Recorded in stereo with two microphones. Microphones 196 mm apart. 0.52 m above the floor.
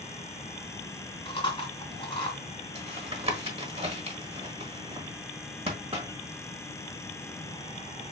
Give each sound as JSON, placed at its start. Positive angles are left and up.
{"t": 1.2, "sound": "chewing", "side_deg": 25, "distance_m": 1.7}
{"t": 2.8, "sound": "tapping", "side_deg": -30, "distance_m": 1.2}